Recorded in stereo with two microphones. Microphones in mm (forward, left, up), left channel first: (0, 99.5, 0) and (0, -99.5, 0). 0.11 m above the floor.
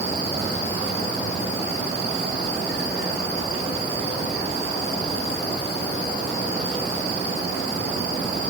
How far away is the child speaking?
I don't hear a child speaking.